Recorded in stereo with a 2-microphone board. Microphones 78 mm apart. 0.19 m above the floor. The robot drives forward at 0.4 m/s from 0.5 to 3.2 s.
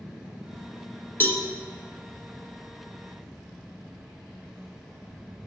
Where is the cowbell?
25° left (ahead or behind), 0.8 m.